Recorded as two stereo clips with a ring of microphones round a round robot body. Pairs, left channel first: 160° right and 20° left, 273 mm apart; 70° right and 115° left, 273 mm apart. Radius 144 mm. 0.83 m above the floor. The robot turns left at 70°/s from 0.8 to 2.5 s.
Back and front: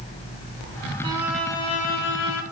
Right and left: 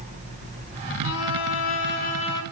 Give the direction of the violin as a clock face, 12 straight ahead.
2 o'clock.